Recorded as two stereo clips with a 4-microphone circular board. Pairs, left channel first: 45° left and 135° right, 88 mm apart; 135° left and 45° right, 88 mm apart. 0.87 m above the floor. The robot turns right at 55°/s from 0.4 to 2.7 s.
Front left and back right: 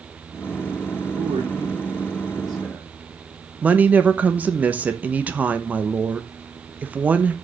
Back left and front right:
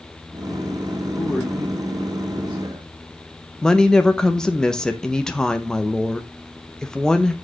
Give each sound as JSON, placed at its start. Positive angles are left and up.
{"t": 1.2, "sound": "a man speaking", "azimuth_deg": -155, "distance_m": 1.3}
{"t": 3.6, "sound": "a woman speaking", "azimuth_deg": -160, "distance_m": 0.7}